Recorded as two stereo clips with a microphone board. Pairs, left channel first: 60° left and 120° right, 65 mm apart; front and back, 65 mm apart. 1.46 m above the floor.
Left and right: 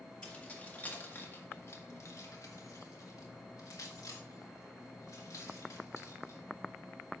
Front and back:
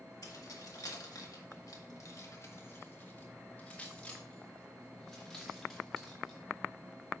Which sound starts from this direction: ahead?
Keys jangling, at 0.2 s.